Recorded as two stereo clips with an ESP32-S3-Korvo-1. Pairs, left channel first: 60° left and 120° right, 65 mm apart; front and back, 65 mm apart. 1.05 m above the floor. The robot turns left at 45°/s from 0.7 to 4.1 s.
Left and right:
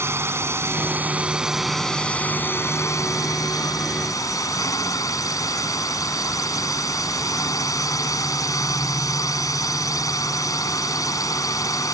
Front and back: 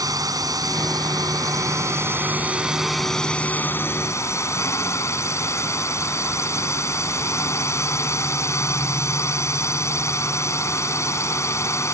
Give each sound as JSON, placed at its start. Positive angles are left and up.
{"t": 0.0, "sound": "a drone", "azimuth_deg": -165}